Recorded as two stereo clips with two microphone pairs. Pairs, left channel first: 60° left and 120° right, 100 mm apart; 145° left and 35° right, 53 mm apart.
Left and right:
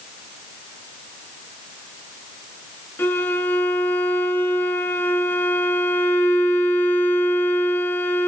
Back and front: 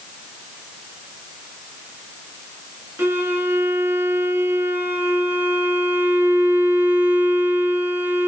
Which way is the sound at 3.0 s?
Straight ahead.